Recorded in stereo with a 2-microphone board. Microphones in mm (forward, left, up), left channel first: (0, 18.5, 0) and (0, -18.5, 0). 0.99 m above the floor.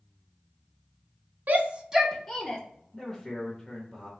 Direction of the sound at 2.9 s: Centre (ahead or behind).